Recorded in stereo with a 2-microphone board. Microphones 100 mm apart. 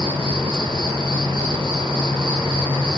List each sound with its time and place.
0.0 s an insect: 60° right (ahead or behind), 1.2 m